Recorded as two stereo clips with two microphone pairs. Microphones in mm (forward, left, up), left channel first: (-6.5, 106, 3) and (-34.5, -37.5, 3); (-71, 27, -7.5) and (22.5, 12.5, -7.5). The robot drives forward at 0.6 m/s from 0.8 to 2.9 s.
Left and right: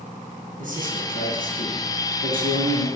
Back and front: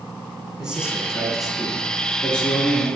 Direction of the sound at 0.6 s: 90° right.